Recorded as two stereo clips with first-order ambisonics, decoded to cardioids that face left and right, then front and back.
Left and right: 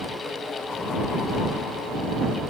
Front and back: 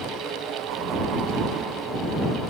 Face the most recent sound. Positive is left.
No sound to turn to.